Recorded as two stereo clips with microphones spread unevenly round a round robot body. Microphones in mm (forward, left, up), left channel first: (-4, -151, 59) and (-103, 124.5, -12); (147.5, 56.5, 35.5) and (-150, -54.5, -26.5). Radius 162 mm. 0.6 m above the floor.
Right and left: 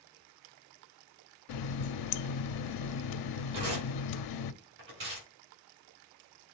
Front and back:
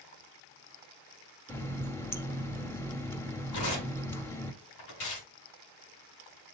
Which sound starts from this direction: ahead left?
Tearing paper, at 3.5 s.